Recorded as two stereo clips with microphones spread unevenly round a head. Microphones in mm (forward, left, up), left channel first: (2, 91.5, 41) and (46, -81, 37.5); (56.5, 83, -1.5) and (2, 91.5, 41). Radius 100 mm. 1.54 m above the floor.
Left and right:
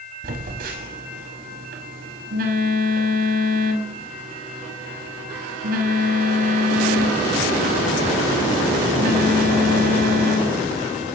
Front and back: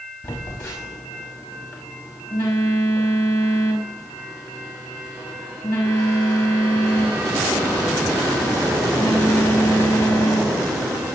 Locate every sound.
0.2 s a phone buzzing: 45° right, 5.5 m